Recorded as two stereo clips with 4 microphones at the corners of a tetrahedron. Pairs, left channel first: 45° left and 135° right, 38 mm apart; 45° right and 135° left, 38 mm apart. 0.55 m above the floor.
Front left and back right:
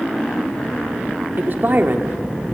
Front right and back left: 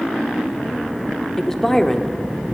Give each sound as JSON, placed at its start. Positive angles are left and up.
{"t": 1.4, "sound": "a woman speaking", "azimuth_deg": -125, "distance_m": 1.0}